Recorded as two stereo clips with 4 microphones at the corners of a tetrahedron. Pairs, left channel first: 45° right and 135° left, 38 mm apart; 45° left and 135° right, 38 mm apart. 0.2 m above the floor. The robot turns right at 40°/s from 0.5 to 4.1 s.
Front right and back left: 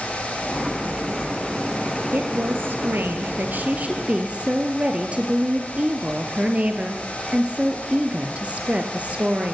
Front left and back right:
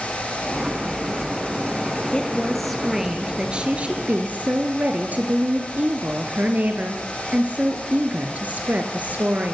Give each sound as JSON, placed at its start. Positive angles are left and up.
{"t": 2.1, "sound": "a woman speaking", "azimuth_deg": 110, "distance_m": 4.0}